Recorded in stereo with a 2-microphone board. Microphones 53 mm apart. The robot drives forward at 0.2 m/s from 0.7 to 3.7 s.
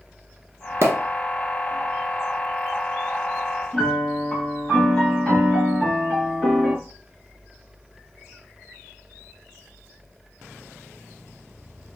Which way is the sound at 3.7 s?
15° left (ahead or behind).